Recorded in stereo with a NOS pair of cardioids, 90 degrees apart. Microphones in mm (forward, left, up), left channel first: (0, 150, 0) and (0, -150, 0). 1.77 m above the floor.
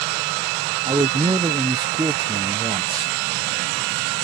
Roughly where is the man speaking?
Ahead.